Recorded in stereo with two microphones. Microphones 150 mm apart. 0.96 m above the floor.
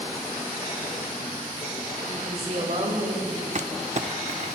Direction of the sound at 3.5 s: 50° right (ahead or behind).